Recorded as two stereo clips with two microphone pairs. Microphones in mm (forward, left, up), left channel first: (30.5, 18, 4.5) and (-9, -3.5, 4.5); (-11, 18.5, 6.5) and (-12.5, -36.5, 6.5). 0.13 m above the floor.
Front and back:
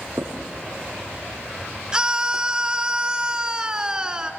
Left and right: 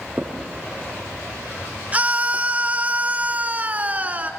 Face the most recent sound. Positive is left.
turn(degrees=-100)